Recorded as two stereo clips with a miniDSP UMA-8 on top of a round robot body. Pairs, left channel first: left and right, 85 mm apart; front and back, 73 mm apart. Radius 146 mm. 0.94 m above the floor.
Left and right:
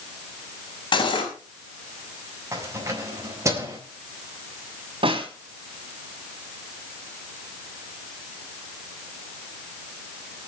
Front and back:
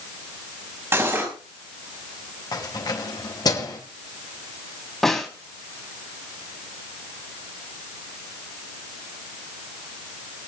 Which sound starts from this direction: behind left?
Cutlery clinking, at 0.9 s.